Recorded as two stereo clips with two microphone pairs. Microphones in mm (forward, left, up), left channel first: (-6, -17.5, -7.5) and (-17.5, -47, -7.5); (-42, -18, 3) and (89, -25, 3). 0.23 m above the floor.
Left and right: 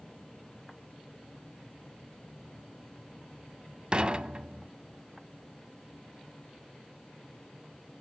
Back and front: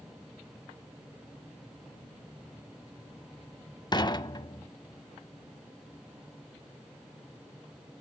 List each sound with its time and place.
3.9 s dishes clattering: 145° right, 0.8 m